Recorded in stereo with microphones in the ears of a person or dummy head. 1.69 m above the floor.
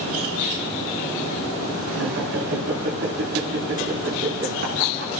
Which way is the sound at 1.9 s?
65° right (ahead or behind).